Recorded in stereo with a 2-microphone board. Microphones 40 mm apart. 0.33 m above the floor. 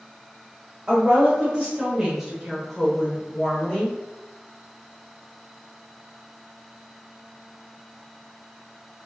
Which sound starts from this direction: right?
A woman speaking, at 0.9 s.